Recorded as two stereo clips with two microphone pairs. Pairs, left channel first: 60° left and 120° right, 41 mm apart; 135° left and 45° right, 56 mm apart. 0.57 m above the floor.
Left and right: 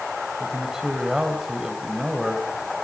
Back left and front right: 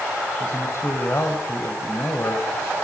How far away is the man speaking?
About 3 m.